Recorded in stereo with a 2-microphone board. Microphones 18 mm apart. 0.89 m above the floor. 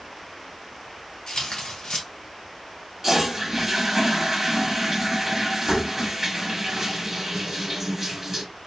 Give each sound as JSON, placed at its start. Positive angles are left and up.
{"t": 1.3, "sound": "tearing paper", "side_deg": 60, "distance_m": 1.4}
{"t": 3.0, "sound": "a toilet flushing", "side_deg": -25, "distance_m": 1.0}